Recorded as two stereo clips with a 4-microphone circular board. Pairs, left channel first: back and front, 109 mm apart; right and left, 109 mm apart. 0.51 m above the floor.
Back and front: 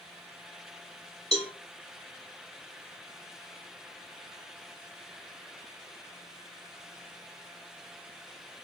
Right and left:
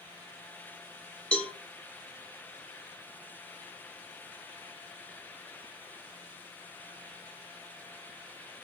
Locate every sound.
1.3 s a cowbell: 170° right, 1.1 m